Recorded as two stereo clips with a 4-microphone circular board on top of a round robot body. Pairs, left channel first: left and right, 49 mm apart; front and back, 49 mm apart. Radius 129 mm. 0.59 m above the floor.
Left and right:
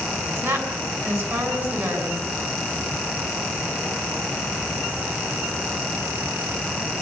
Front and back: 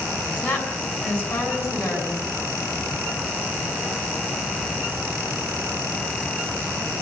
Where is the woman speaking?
70° right, 7.5 m.